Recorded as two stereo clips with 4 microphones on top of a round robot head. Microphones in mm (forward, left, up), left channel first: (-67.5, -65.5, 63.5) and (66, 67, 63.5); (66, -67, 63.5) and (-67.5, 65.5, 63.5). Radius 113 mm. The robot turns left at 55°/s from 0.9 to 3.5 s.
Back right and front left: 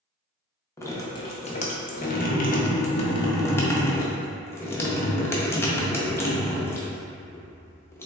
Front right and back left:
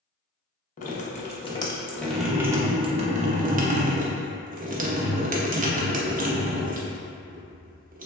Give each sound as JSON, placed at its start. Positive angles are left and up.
{"t": 0.8, "sound": "dripping", "azimuth_deg": -65, "distance_m": 0.7}